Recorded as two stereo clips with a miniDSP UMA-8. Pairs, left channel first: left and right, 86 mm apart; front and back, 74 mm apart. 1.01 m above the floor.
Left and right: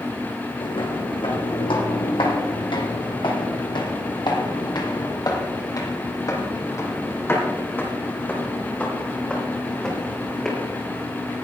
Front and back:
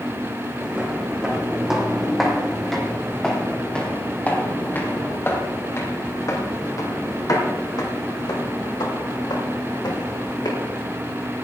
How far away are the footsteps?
About 3.5 m.